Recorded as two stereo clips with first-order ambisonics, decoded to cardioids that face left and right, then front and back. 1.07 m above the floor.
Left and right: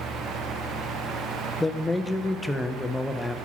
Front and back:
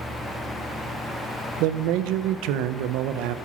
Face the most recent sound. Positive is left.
turn(degrees=175)